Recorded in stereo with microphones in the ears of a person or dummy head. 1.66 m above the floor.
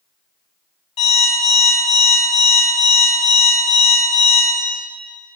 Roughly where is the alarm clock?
Left.